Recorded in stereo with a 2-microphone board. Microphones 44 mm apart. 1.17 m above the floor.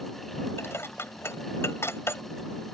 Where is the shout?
No shout in this recording.